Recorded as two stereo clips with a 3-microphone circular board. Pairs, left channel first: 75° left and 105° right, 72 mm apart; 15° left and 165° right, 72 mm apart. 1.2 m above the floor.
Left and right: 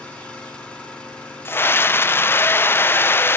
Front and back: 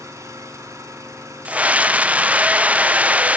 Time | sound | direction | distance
0.0 | an engine running | 145° left | 4 m
1.4 | a scream | 125° left | 0.5 m